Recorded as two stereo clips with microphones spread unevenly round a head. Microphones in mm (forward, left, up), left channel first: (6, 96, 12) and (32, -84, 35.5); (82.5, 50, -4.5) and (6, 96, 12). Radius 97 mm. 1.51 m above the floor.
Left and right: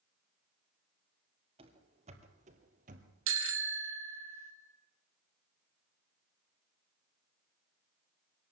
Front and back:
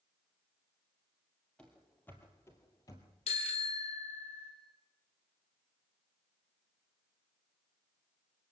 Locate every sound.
1.6 s running footsteps: 120° right, 2 m; by 3.1 s 90° right, 2 m
3.3 s a bicycle bell: 80° right, 2.5 m